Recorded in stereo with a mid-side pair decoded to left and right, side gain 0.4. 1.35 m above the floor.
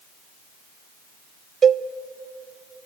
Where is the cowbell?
50° right, 0.6 m.